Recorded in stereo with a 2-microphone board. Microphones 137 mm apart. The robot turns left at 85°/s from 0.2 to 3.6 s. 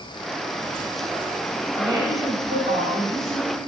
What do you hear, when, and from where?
1.7 s a woman speaking: 15° right, 3 m; by 3.5 s 170° right, 3 m